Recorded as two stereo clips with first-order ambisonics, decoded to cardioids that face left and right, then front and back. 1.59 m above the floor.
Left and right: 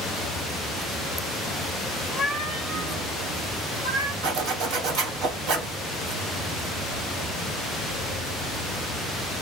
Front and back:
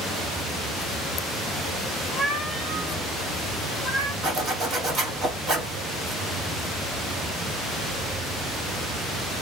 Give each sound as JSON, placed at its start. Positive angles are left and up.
{"t": 2.1, "sound": "a cat meowing", "azimuth_deg": 105, "distance_m": 0.9}
{"t": 4.2, "sound": "a zipper", "azimuth_deg": -115, "distance_m": 1.4}